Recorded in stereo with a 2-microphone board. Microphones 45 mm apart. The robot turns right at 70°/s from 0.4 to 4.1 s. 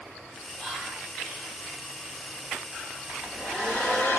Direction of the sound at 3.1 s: 30° right.